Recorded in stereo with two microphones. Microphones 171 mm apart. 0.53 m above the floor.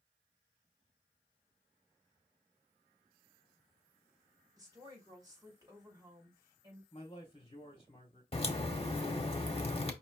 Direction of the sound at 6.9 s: 35° left (ahead or behind).